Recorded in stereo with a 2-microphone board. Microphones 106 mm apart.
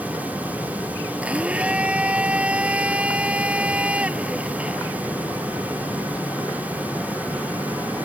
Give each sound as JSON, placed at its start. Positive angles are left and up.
{"t": 1.2, "sound": "a blender", "side_deg": -10}